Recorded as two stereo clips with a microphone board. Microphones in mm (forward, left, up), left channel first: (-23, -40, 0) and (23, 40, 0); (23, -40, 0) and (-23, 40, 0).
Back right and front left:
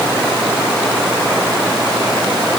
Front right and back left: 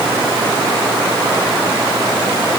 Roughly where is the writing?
No writing in this recording.